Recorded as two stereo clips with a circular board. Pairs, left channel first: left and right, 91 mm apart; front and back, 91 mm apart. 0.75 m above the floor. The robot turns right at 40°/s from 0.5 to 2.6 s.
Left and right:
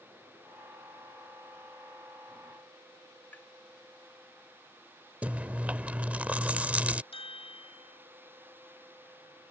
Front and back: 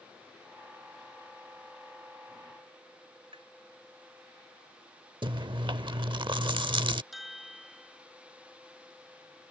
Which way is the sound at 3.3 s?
160° left.